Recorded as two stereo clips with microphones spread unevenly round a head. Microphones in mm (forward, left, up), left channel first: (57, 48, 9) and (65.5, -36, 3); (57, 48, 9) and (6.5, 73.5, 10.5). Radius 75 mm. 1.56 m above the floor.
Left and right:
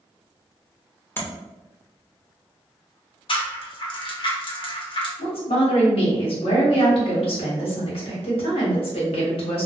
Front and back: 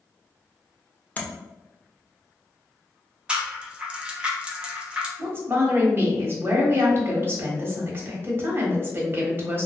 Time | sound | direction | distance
1.2 | tapping | 35° left | 0.9 m
3.3 | a rattle | 80° left | 0.8 m
5.2 | a woman speaking | 105° left | 1.2 m